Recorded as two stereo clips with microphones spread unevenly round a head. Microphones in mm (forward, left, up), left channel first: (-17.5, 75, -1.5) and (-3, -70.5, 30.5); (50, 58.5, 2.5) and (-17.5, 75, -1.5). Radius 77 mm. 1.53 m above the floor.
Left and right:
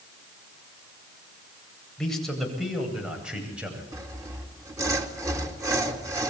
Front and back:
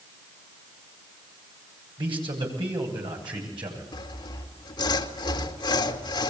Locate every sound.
2.0 s a man speaking: 175° right, 8.5 m; by 3.8 s 165° right, 10 m
3.9 s sawing: 15° right, 2.5 m